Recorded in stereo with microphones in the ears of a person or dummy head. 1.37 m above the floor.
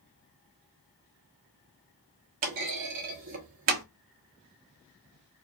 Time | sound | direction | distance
2.4 | a clunk | 35° right (ahead or behind) | 0.9 m